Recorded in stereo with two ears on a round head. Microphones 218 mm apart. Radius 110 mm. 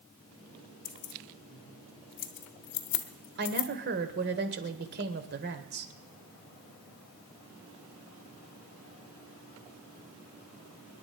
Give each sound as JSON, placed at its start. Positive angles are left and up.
{"t": 0.8, "sound": "keys jangling", "side_deg": 50, "distance_m": 1.3}
{"t": 3.4, "sound": "a woman speaking", "side_deg": -45, "distance_m": 1.7}